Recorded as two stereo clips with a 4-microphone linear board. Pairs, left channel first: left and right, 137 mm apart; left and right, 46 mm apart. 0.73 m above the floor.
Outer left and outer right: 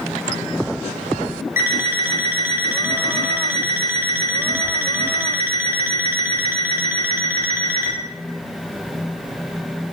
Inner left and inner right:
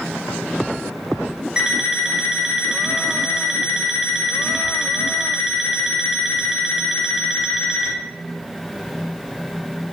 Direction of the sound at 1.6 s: 20° right (ahead or behind).